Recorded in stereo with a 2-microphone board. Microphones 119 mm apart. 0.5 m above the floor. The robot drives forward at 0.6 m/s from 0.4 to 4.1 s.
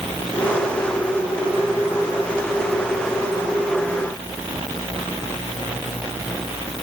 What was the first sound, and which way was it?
Only background noise.